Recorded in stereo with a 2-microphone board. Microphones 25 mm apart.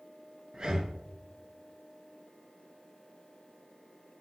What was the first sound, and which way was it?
Breathing, 35° right (ahead or behind).